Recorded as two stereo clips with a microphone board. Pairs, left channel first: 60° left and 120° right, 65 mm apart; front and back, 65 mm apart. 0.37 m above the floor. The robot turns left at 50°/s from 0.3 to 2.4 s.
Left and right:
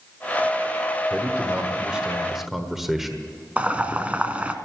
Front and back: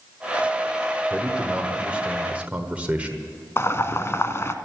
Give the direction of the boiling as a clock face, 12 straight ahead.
2 o'clock.